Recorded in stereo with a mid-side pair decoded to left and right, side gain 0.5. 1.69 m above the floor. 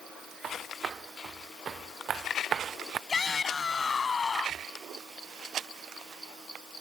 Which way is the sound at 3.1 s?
35° left.